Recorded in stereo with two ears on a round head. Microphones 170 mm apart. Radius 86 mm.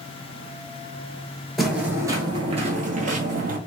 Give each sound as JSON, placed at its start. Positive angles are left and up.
{"t": 1.6, "sound": "footsteps", "side_deg": 0, "distance_m": 0.9}